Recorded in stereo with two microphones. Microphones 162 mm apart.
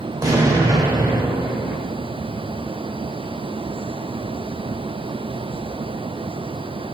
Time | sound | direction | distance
0.2 | an explosion | 20° right (ahead or behind) | 0.7 m